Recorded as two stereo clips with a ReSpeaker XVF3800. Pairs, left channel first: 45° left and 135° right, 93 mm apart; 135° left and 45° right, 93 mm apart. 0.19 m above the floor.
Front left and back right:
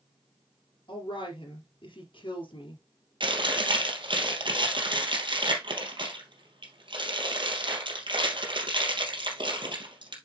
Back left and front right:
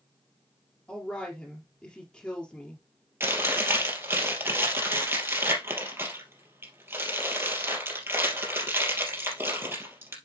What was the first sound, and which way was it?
A woman speaking, 60° left.